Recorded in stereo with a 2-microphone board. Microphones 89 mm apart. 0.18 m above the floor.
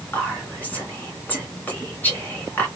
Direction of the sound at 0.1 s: 20° left (ahead or behind).